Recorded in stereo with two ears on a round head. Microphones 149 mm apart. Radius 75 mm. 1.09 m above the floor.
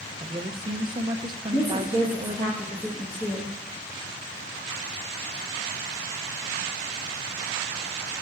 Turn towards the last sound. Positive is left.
turn(degrees=20)  # may be behind; listen again after turning